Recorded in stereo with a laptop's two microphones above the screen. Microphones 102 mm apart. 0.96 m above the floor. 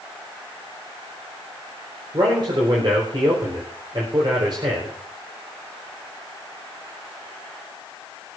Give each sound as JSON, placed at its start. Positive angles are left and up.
{"t": 2.1, "sound": "a man speaking", "side_deg": -50, "distance_m": 4.0}